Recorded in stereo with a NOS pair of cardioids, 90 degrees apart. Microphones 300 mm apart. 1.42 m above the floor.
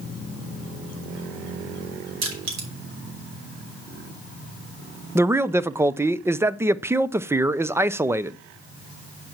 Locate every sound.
2.2 s crushing: 70° right, 5 m
5.2 s a man speaking: 10° right, 0.6 m